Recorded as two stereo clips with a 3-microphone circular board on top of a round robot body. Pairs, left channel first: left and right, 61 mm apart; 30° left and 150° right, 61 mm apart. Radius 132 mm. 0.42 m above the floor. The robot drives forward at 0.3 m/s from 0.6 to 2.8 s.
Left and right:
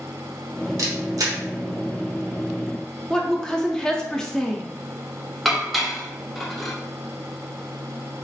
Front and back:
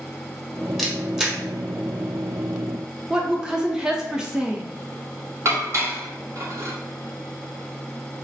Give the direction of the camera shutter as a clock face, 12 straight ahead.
2 o'clock.